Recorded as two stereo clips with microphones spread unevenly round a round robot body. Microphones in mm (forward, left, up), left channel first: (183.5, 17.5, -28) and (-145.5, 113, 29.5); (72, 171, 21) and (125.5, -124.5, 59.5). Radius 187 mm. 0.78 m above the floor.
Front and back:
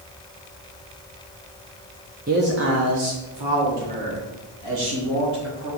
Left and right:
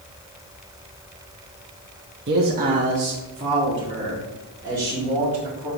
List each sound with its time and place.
2.3 s a man speaking: 125° right, 0.8 m; by 5.7 s 165° right, 3 m